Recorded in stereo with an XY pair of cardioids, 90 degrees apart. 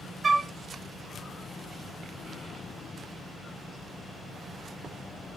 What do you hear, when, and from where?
0.2 s a flute: 30° right, 0.6 m